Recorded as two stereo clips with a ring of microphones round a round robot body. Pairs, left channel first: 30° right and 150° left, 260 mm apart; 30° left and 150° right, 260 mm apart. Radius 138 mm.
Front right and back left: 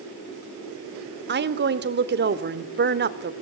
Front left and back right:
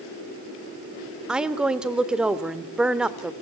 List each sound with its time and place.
1.3 s a woman speaking: 125° left, 1.5 m